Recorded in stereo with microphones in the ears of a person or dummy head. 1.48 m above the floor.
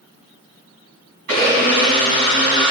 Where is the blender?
50° right (ahead or behind), 4 m.